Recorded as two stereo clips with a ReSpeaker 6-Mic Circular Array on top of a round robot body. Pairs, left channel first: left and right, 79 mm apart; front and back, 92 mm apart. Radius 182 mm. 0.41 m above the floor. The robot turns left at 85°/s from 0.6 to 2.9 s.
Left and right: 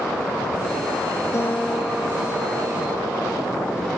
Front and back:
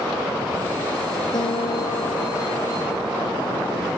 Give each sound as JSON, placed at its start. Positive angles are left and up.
{"t": 1.3, "sound": "a guitar", "azimuth_deg": 40}